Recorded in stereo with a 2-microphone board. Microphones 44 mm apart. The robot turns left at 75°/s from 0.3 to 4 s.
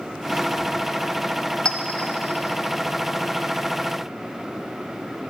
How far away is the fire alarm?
No fire alarm in this recording.